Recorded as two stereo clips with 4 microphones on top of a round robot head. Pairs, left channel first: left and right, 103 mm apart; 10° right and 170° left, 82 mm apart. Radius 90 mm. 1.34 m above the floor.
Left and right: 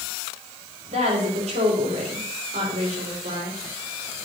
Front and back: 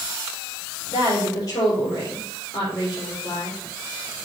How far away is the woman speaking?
About 3.5 m.